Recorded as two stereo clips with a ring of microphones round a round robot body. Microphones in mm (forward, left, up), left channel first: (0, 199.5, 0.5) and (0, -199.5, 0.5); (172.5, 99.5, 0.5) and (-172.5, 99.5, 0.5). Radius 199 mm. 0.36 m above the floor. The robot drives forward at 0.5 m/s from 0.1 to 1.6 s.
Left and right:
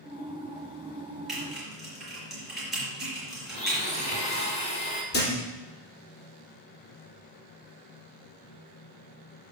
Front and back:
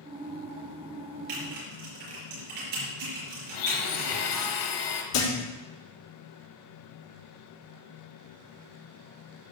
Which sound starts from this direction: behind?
Typing on a keyboard, at 1.3 s.